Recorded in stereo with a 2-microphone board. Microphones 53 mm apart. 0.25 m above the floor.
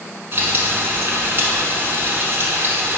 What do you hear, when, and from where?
0.3 s frying: 45° right (ahead or behind), 0.9 m